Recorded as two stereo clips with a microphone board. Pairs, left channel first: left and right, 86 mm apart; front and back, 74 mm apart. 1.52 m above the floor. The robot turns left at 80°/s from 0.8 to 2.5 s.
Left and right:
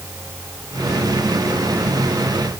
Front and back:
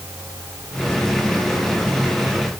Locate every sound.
Only background noise.